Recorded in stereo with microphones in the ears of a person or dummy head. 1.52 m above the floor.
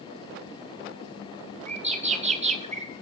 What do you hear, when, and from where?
1.7 s a bird: 35° right (ahead or behind), 1.0 m